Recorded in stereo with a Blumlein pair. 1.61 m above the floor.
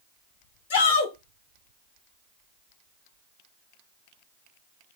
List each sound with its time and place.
0.7 s a shout: 60° left, 1.3 m